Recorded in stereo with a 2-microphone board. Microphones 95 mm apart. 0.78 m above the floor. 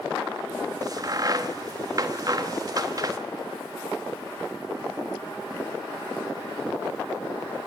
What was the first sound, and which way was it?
A crack, 40° right (ahead or behind).